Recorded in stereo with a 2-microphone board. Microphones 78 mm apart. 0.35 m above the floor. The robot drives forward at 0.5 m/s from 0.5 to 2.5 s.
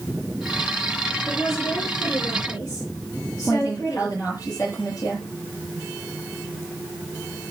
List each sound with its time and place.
1.3 s a woman speaking: 35° left (ahead or behind), 7.5 m
3.5 s a woman speaking: 40° left (ahead or behind), 7.5 m